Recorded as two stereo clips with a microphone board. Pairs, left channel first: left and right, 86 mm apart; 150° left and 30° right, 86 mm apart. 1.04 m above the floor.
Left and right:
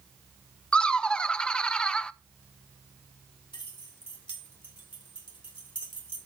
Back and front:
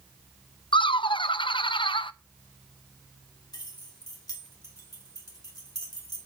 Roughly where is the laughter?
Behind.